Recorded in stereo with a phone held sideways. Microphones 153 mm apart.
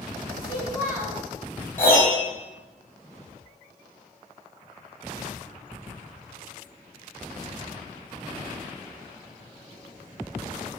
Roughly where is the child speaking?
Centre.